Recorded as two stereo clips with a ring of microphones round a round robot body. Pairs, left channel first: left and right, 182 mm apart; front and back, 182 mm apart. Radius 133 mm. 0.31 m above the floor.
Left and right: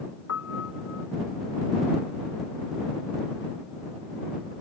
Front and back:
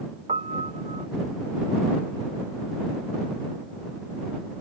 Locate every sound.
0.3 s a piano: 125° left